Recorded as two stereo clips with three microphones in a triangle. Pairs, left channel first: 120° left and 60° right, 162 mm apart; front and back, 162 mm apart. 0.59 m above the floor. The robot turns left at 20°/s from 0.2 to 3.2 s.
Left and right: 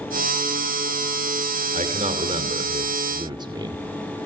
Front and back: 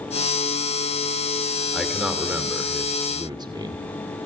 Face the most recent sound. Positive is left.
turn(degrees=-120)